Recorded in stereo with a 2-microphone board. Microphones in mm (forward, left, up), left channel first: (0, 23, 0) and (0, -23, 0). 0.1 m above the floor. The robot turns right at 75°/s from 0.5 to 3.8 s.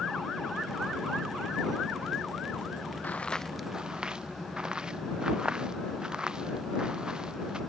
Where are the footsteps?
40° left (ahead or behind); by 7.6 s 20° right (ahead or behind).